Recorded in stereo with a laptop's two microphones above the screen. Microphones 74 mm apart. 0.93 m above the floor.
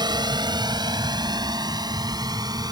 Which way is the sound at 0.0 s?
75° right (ahead or behind).